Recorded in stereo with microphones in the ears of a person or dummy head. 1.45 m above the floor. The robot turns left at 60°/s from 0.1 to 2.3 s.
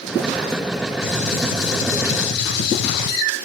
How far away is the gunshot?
About 0.9 m.